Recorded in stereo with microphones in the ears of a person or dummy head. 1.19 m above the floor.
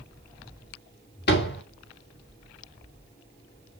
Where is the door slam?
60° left (ahead or behind), 2 m.